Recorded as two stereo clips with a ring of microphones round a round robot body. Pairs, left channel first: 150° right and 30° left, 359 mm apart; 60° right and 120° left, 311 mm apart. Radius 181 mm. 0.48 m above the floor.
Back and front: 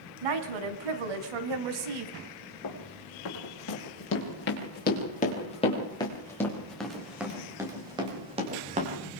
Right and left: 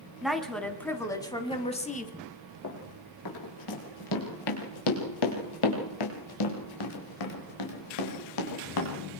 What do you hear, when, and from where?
0.2 s a woman speaking: 30° left, 4 m; by 2.1 s 5° left, 3 m
2.6 s running footsteps: 105° right, 6.5 m; by 8.9 s 40° right, 7 m